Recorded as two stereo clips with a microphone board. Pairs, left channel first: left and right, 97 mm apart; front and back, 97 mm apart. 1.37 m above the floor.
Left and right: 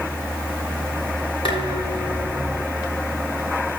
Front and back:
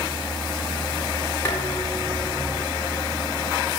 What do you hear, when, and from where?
1.4 s dishes clattering: 65° left, 8 m